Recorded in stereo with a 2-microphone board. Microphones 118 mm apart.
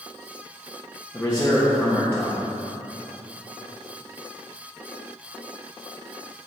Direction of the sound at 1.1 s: 20° left (ahead or behind).